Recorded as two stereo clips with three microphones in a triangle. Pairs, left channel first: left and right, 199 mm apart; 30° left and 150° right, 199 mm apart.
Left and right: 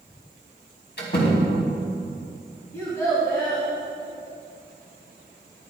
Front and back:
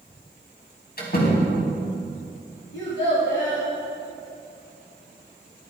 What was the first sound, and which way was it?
A door slam, 65° left.